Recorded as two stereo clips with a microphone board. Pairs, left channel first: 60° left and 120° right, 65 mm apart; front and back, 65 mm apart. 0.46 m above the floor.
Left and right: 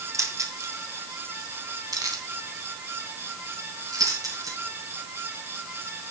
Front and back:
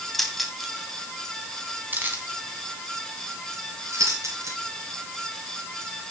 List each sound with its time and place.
0.1 s keys jangling: 85° right, 2 m; by 4.6 s 140° right, 4.5 m